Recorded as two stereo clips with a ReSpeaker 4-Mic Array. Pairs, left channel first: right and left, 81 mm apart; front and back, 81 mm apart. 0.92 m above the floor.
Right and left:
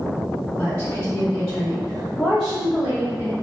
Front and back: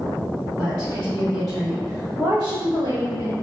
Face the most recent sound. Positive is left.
turn(degrees=150)